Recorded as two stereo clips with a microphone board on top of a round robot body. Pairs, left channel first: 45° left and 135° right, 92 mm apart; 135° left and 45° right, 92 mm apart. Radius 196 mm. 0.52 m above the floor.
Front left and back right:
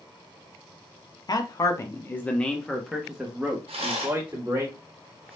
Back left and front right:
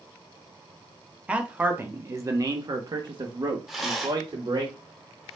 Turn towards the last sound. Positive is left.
turn(degrees=-135)